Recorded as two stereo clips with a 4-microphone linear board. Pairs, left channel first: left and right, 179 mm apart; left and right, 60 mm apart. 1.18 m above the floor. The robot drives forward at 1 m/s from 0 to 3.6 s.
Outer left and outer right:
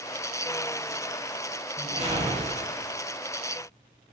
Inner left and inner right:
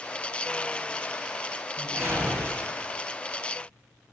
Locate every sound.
1.8 s a whoosh: 35° right (ahead or behind), 1.5 m; by 2.8 s 40° right (ahead or behind), 1.3 m